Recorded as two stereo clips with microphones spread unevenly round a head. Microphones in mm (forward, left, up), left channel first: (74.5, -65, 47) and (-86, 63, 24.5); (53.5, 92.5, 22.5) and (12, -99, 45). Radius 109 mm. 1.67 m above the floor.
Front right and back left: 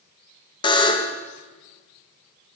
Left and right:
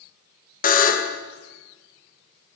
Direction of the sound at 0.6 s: 30° left.